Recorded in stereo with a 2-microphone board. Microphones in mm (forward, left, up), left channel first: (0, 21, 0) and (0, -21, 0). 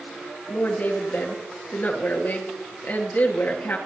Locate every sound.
0.5 s a woman speaking: 50° left (ahead or behind), 2.5 m